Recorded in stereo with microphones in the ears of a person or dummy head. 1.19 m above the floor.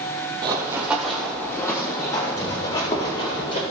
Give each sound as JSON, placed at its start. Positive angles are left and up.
{"t": 0.4, "sound": "running footsteps", "side_deg": -20, "distance_m": 1.6}